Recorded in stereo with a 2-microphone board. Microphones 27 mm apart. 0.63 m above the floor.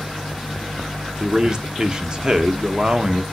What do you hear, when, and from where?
1.2 s a man speaking: 30° right (ahead or behind), 0.9 m